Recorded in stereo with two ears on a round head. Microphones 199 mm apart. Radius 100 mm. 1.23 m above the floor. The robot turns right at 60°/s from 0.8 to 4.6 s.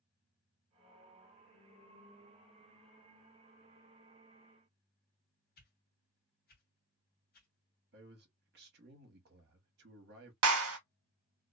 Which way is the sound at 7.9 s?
45° right (ahead or behind).